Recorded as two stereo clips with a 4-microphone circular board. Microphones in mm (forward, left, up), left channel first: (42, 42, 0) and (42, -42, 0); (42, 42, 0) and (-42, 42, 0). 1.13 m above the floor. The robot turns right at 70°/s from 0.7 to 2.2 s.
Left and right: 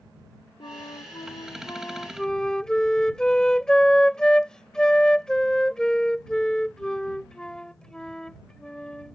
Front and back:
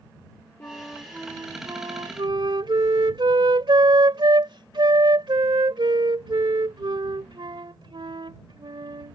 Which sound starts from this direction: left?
A flute, at 0.6 s.